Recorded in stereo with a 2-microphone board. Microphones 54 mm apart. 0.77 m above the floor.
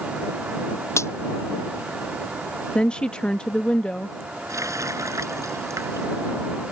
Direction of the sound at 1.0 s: 55° left (ahead or behind).